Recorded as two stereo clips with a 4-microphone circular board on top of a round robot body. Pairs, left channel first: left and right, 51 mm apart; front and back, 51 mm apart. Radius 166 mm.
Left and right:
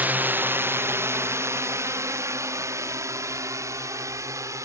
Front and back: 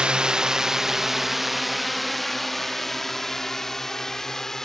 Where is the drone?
120° right; by 4.7 s 80° right.